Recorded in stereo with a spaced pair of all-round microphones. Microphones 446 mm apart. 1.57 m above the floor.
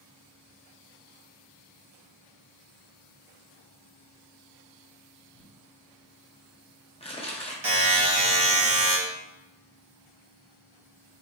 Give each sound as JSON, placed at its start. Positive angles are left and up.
{"t": 5.3, "sound": "crumpling", "side_deg": 15, "distance_m": 0.7}
{"t": 7.6, "sound": "a buzzer", "side_deg": -85, "distance_m": 1.3}